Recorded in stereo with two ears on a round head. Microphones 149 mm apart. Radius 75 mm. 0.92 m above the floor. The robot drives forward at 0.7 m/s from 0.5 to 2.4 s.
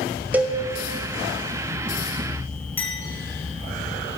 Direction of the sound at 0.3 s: 10° right (ahead or behind).